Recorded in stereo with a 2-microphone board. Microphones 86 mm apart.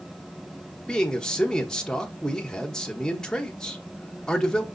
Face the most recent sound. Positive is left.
turn(degrees=10)  # may be behind; listen again after turning